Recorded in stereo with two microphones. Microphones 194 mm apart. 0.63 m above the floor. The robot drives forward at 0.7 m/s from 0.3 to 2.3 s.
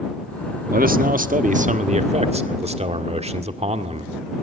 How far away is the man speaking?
About 1.2 m.